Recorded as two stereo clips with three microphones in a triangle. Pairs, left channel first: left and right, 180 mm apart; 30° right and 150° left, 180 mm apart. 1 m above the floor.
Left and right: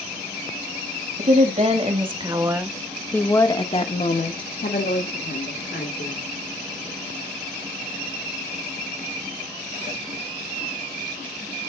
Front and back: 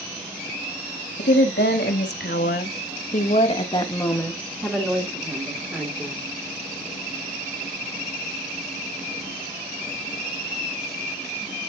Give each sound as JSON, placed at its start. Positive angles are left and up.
{"t": 1.2, "sound": "a woman speaking", "azimuth_deg": -45, "distance_m": 2.0}